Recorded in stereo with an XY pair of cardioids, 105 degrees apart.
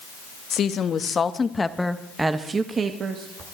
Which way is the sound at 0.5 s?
50° left.